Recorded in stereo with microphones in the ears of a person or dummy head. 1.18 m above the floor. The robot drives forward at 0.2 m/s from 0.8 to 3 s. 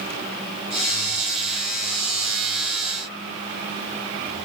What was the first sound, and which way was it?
Only background noise.